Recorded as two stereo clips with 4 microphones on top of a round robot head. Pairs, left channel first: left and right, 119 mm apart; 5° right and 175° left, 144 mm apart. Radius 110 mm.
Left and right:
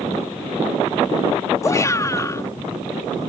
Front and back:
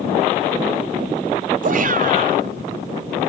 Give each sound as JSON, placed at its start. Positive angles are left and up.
{"t": 1.6, "sound": "a shout", "azimuth_deg": 155}